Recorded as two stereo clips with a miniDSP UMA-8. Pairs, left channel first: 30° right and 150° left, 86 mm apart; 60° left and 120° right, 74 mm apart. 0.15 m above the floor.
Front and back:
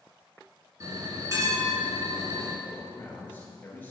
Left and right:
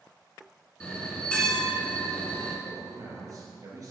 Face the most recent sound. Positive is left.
turn(degrees=-95)